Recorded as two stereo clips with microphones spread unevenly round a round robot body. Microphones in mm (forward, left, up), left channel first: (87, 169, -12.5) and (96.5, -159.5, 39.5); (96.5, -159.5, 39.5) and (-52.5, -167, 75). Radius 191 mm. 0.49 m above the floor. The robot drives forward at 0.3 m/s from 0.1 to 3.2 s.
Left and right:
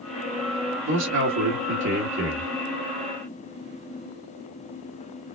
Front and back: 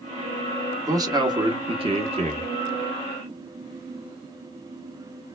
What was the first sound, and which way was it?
A man speaking, 105° right.